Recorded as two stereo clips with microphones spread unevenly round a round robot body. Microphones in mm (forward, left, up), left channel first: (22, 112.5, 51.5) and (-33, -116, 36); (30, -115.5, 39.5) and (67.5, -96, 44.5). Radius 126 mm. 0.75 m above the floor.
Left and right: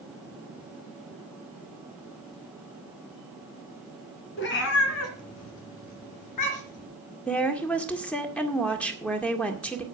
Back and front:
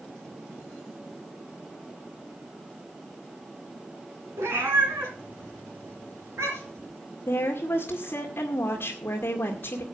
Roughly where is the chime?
I don't hear a chime.